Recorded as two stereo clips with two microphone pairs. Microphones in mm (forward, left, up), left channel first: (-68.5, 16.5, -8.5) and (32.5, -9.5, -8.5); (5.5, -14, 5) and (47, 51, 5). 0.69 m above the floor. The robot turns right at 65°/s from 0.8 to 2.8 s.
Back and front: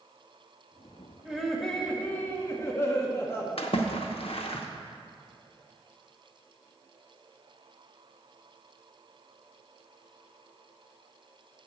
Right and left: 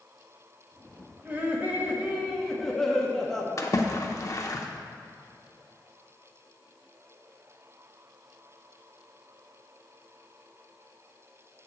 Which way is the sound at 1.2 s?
60° left.